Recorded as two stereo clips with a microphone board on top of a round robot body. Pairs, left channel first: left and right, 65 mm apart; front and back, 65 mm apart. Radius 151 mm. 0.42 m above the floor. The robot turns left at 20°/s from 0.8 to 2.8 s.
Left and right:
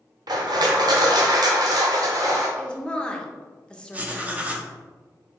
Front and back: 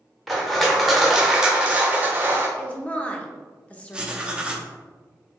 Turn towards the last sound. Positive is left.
turn(degrees=-125)